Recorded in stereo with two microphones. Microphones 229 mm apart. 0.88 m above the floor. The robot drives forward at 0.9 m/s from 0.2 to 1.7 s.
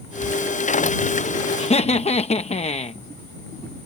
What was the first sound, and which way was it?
Writing, 5° left (ahead or behind).